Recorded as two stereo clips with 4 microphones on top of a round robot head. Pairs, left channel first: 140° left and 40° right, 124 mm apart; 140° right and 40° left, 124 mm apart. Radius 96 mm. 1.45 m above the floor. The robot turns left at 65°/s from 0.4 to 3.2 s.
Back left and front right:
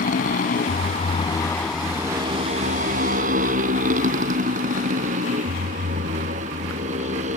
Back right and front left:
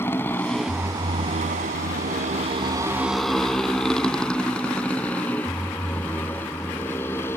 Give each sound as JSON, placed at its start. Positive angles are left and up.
{"t": 0.0, "sound": "a motorcycle", "azimuth_deg": 150}